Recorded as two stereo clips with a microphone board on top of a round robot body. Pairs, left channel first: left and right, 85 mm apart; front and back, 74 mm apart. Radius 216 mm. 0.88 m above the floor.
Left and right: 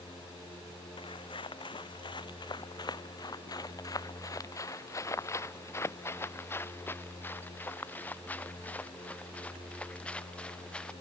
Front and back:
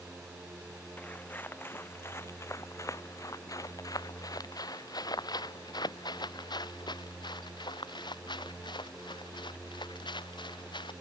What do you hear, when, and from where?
1.0 s footsteps: 70° left; by 10.9 s 10° left